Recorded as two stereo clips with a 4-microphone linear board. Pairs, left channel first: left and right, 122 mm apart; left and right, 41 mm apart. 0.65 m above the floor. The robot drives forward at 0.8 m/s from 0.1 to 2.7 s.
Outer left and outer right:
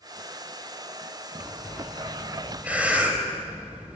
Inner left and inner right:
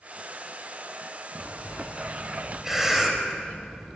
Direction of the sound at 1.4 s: 15° right (ahead or behind).